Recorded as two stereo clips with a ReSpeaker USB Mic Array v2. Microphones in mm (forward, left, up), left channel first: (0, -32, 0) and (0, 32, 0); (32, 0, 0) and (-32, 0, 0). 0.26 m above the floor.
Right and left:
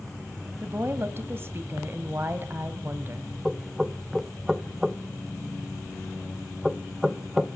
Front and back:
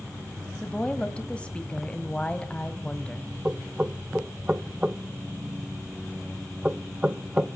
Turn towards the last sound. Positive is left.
turn(degrees=160)